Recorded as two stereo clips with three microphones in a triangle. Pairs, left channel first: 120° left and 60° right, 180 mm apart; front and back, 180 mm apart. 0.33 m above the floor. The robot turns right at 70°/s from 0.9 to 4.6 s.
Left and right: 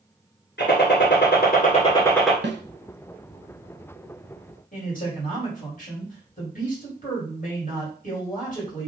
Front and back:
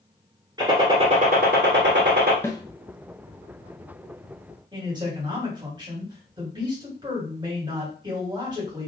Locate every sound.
0.6 s a gunshot: 115° left, 1.2 m; by 2.3 s 145° right, 1.2 m
2.4 s a snare drum: 75° right, 0.6 m; by 2.6 s 60° right, 0.6 m
4.7 s a man speaking: 125° left, 2 m